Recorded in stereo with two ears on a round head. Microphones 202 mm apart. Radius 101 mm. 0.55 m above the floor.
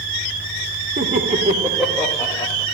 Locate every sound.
1.0 s laughter: 45° right (ahead or behind), 1.3 m; by 2.6 s 20° left (ahead or behind), 1.8 m